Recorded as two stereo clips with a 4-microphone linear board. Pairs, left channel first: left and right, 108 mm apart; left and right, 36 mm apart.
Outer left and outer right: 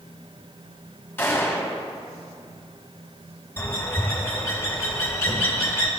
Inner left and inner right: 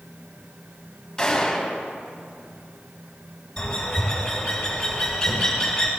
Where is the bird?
20° left (ahead or behind), 2 m.